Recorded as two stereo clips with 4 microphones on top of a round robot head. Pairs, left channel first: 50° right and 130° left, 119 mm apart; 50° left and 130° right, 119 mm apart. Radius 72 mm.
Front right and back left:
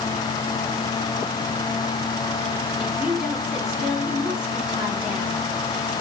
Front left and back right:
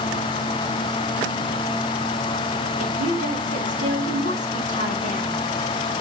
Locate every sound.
2.8 s a woman speaking: 145° right, 3 m